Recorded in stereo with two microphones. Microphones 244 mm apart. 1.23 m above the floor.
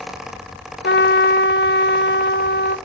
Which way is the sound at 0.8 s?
50° left (ahead or behind).